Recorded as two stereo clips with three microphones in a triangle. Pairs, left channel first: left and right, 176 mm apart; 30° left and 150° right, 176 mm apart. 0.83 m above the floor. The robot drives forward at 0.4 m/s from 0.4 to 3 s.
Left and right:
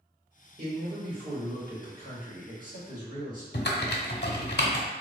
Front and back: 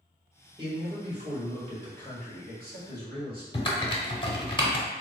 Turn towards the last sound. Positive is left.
turn(degrees=85)